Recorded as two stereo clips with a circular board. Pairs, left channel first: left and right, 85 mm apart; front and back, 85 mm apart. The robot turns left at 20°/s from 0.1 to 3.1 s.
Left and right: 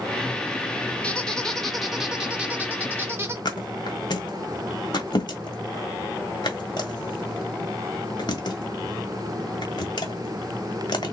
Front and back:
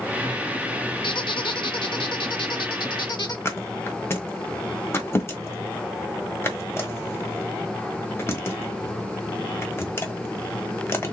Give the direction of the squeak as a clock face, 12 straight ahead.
12 o'clock.